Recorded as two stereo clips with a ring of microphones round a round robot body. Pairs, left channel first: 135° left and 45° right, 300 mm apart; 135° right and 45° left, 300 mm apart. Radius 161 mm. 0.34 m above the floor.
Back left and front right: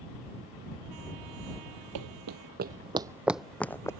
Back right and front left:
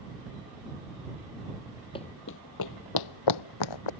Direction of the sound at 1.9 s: 60° right.